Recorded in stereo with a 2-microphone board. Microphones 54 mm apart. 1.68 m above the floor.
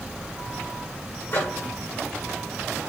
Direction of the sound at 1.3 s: 50° left (ahead or behind).